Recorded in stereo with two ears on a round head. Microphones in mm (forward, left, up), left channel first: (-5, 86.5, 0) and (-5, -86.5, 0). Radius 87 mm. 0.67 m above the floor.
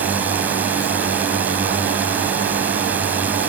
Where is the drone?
10° right (ahead or behind).